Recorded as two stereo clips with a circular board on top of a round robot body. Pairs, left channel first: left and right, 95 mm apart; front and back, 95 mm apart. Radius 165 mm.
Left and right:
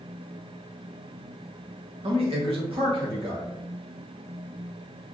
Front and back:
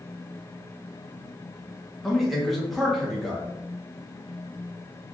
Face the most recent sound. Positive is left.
turn(degrees=-90)